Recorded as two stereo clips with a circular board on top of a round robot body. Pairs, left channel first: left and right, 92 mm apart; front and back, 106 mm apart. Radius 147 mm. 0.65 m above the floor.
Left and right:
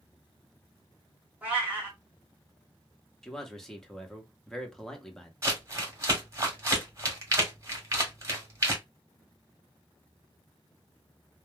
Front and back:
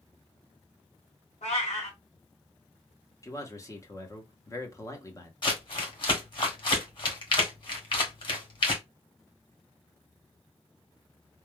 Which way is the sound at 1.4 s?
15° right.